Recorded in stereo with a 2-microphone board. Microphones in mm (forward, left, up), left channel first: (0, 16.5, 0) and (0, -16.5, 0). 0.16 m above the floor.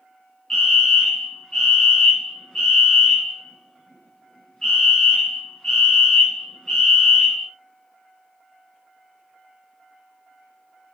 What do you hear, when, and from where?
0.5 s a fire alarm: 20° left (ahead or behind), 3 m